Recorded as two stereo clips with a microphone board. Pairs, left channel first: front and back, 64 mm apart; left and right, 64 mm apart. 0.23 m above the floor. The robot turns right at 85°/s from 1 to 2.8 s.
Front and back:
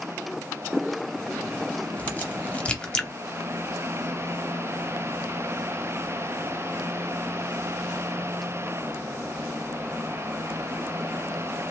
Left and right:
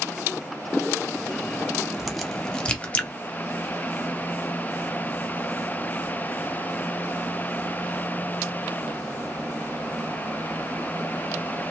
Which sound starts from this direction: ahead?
A crack, at 2.0 s.